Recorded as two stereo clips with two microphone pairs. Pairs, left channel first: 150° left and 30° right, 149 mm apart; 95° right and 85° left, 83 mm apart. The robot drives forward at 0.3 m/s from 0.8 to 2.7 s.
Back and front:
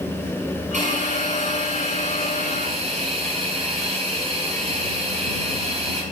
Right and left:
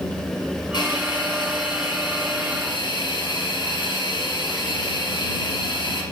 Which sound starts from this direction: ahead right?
A hiss, at 0.7 s.